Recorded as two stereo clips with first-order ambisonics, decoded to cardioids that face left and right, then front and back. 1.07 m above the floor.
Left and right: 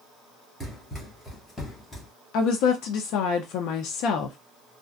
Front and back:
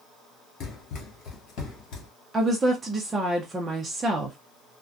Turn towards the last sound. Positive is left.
turn(degrees=105)